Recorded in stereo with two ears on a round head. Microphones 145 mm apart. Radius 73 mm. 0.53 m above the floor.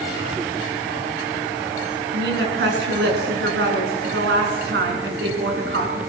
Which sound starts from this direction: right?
A woman speaking, at 2.1 s.